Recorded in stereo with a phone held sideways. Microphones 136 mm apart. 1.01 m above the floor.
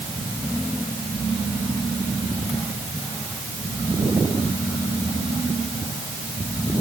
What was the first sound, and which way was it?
Only background noise.